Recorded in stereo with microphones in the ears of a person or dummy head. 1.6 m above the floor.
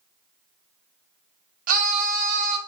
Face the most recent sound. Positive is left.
turn(degrees=-50)  # may be behind; listen again after turning